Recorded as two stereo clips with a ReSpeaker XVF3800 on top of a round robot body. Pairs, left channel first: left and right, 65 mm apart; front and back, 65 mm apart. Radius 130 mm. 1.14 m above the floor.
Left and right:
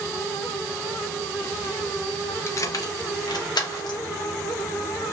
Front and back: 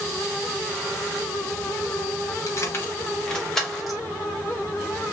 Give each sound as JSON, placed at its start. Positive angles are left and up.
{"t": 2.5, "sound": "keys jangling", "azimuth_deg": 40, "distance_m": 0.7}